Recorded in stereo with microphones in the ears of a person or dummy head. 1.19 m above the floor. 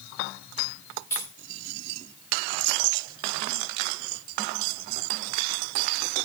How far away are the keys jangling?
About 1.3 m.